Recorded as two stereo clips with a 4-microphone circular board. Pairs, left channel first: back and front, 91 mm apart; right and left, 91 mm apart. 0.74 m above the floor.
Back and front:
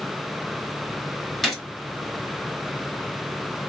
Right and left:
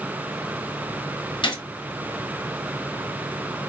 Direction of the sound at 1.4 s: 90° right.